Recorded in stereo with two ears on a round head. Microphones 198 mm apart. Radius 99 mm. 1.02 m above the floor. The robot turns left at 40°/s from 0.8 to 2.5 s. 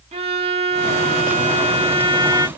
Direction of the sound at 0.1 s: 30° right (ahead or behind).